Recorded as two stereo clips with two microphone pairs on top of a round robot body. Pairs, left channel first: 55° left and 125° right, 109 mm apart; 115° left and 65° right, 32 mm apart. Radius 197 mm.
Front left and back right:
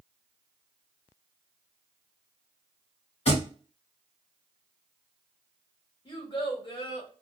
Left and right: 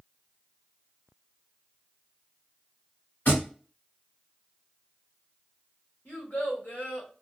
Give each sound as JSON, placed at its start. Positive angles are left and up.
{"t": 3.2, "sound": "a thud", "azimuth_deg": 85, "distance_m": 1.2}
{"t": 6.0, "sound": "a child speaking", "azimuth_deg": 95, "distance_m": 1.2}